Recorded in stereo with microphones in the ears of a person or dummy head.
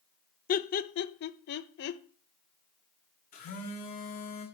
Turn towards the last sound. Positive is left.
turn(degrees=35)  # may be behind; listen again after turning